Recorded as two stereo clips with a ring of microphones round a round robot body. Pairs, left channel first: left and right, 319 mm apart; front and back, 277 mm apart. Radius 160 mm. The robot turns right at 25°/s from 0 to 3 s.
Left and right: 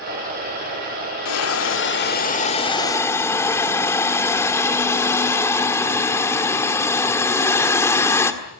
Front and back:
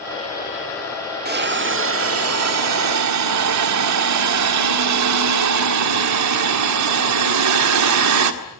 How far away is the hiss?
About 1.8 m.